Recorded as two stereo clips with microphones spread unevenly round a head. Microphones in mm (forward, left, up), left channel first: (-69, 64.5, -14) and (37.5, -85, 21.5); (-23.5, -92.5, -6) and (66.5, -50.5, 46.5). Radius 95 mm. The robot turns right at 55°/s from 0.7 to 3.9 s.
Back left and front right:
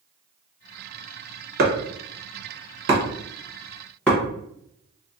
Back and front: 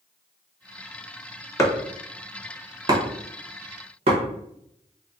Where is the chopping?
90° right, 0.9 m; by 4.2 s 40° left, 0.9 m.